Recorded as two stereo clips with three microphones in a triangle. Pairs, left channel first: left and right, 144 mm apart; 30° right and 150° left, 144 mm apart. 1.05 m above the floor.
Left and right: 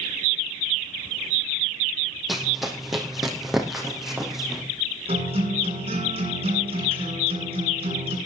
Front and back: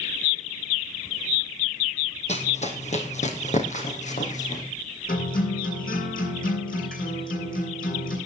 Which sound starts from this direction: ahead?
Running footsteps, at 2.3 s.